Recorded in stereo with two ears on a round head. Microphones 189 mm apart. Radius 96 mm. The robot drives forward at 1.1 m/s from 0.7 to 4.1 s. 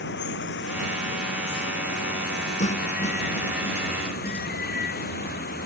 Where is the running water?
60° left (ahead or behind); by 5.7 s 50° left (ahead or behind).